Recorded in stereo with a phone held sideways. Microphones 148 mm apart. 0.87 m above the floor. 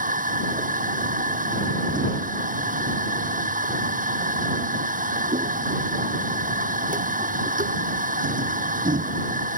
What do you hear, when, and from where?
0.0 s a machine running: 65° right (ahead or behind)